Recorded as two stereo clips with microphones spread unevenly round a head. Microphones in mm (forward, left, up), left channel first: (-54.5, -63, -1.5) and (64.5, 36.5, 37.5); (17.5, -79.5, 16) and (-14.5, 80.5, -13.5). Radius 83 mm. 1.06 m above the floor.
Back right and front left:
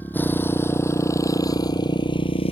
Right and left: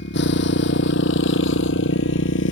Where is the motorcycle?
60° right; by 2.5 s 85° right.